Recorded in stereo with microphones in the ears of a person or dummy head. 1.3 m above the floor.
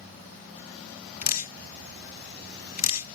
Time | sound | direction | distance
1.2 | dripping | 40° left (ahead or behind) | ?